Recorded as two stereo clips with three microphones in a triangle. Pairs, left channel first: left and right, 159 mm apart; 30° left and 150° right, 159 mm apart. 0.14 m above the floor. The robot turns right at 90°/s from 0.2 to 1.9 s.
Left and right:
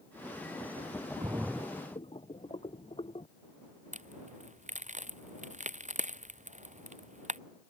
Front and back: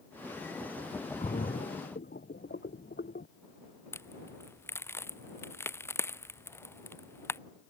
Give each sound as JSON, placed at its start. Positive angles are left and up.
{"t": 1.2, "sound": "a splash", "azimuth_deg": -25}
{"t": 3.9, "sound": "a crack", "azimuth_deg": -45}